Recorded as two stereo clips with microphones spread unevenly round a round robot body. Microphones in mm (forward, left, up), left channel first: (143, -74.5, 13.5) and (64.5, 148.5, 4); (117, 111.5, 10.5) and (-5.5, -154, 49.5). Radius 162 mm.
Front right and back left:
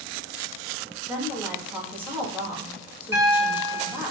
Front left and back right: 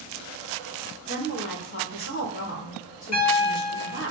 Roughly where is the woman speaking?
Ahead left.